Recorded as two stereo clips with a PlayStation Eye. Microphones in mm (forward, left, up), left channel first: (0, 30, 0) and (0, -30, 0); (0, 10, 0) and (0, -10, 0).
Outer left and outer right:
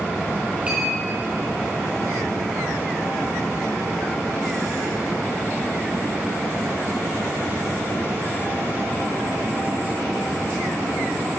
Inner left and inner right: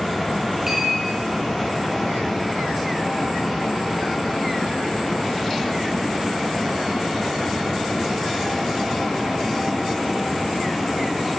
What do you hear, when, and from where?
0.7 s a clink: 20° right (ahead or behind), 3 m